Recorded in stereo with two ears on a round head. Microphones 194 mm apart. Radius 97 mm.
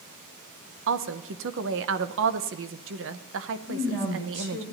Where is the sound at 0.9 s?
60° right (ahead or behind), 0.8 m.